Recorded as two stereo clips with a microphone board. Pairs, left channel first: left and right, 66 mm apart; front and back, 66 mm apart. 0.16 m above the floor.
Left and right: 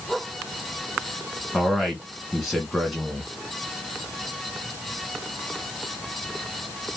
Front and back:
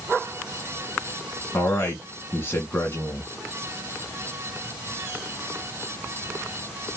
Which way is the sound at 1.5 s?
Straight ahead.